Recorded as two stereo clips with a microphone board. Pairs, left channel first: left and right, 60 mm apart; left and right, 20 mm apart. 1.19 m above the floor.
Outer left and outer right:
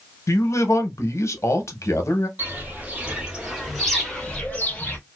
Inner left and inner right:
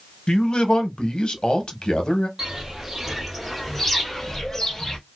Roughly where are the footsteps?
Right.